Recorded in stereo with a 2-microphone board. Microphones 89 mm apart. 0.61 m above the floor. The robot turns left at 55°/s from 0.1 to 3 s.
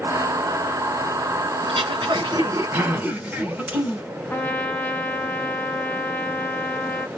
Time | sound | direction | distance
1.6 | throat clearing | 95° right | 1.8 m
4.3 | a trumpet | 20° left (ahead or behind) | 0.7 m